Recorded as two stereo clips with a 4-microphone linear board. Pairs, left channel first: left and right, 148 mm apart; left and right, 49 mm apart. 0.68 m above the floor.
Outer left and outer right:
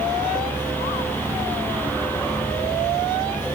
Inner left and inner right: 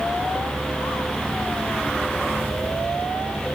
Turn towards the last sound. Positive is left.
No sound to turn to.